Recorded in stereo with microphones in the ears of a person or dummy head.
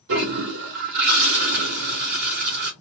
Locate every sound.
0.1 s a toilet flushing: 60° right (ahead or behind), 1.1 m